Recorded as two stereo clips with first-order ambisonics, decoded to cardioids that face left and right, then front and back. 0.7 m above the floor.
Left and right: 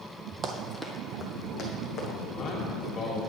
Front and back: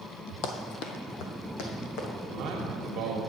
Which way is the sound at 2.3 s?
145° left.